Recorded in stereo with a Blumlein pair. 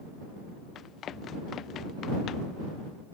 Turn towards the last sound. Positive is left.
turn(degrees=30)